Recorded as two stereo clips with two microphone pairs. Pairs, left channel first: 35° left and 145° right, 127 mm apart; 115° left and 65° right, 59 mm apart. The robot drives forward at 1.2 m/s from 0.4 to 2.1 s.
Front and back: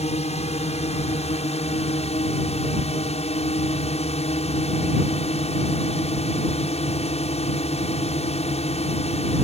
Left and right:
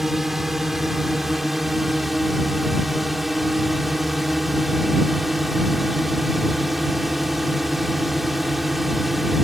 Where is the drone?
20° left.